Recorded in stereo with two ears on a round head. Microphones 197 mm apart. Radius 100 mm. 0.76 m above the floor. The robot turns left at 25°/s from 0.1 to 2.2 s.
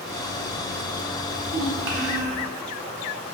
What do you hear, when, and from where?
1.3 s a child speaking: 70° right (ahead or behind), 0.8 m; by 2.4 s 50° right (ahead or behind), 0.8 m